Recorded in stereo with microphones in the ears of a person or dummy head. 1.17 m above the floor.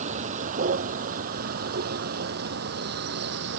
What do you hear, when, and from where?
0.0 s a vehicle: 40° right (ahead or behind); by 3.6 s 55° right (ahead or behind)